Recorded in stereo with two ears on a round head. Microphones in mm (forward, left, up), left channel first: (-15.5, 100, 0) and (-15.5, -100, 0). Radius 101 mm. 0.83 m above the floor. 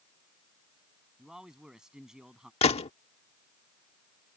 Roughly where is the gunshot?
Left.